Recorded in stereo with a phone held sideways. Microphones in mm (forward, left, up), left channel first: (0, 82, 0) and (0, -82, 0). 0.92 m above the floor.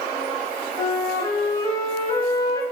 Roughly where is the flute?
Left.